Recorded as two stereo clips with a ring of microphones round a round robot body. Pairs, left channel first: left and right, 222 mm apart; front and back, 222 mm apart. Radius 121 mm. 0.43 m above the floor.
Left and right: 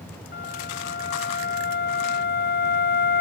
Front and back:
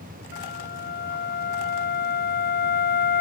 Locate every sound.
0.3 s a flute: 45° left